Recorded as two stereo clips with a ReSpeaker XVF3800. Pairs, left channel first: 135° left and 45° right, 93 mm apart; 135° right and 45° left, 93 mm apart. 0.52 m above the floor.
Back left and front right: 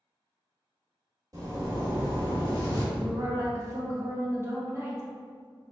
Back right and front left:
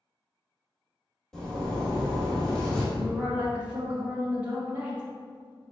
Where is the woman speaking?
15° right, 0.7 m.